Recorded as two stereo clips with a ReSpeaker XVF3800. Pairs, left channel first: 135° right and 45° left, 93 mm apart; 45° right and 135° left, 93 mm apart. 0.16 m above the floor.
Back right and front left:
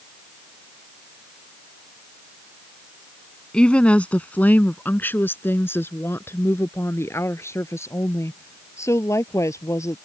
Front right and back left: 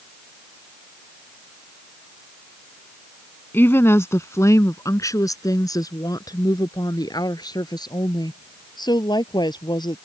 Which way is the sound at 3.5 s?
70° right.